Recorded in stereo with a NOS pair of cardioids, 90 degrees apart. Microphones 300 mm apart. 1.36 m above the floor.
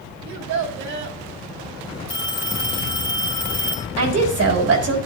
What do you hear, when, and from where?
0.2 s a child speaking: 70° right, 3 m
2.1 s a phone ringing: 15° left, 3 m
4.0 s a woman speaking: 55° right, 3.5 m